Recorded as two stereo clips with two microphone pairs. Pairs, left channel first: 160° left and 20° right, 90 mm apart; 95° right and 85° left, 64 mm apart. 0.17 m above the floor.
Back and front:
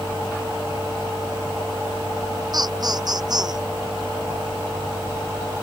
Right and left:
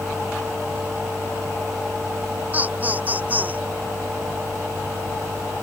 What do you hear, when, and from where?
2.5 s laughter: 20° left